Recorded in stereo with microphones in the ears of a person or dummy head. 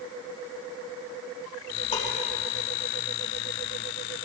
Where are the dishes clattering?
35° left (ahead or behind), 4.5 m.